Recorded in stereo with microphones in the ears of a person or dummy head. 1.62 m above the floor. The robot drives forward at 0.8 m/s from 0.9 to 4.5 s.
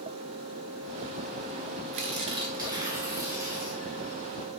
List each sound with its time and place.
1.9 s tearing paper: 40° right (ahead or behind), 0.6 m; by 3.8 s 10° right (ahead or behind), 1.8 m